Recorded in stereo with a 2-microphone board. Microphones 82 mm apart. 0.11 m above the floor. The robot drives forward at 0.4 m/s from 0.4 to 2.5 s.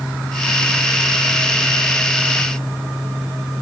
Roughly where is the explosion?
No explosion in this recording.